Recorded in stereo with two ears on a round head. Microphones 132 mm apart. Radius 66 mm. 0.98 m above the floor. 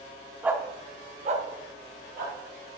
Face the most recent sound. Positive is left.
turn(degrees=-60)  # may be behind; listen again after turning